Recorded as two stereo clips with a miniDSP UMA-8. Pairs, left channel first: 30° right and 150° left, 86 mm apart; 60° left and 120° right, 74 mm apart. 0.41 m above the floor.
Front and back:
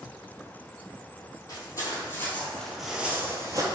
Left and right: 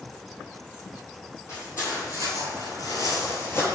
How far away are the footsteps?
About 1.0 m.